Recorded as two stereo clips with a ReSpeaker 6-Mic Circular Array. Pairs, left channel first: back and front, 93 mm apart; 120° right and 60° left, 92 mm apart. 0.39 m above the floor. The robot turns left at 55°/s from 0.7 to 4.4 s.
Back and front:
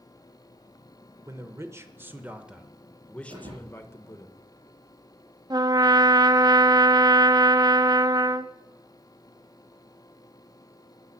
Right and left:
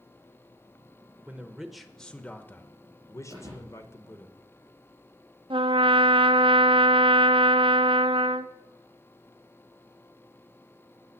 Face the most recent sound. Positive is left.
turn(degrees=45)